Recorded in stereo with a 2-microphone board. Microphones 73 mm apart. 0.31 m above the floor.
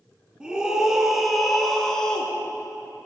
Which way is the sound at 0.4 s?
10° right (ahead or behind).